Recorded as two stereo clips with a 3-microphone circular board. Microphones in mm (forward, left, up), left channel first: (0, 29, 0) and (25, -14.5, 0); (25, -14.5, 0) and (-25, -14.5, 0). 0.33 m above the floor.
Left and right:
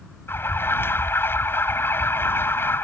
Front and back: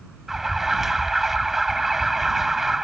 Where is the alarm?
95° left.